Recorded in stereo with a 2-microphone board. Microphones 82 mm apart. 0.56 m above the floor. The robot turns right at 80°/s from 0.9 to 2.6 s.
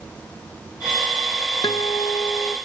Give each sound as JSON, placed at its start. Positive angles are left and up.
{"t": 1.6, "sound": "a guitar", "azimuth_deg": 80, "distance_m": 0.6}